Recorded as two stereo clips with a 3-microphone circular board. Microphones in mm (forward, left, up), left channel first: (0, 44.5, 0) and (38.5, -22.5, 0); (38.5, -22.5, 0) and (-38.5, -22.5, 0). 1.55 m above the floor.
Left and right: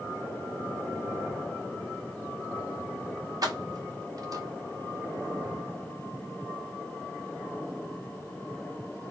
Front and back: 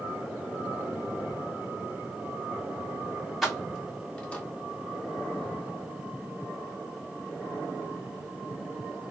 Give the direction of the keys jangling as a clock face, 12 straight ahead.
3 o'clock.